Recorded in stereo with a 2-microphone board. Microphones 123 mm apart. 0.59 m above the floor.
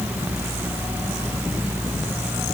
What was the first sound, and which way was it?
Only background noise.